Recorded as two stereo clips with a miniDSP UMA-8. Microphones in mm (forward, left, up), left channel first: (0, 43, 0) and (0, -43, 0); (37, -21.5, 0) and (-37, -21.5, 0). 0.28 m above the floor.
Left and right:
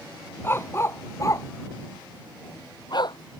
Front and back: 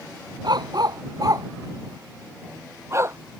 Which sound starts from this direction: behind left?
A dog barking, at 0.4 s.